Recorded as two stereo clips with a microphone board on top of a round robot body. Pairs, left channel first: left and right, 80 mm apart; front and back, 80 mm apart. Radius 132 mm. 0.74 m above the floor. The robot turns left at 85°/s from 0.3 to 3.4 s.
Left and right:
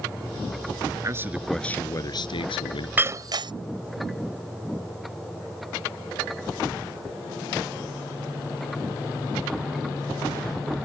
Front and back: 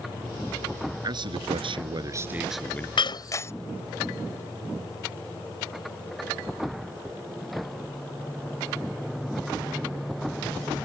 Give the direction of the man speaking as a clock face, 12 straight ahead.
5 o'clock.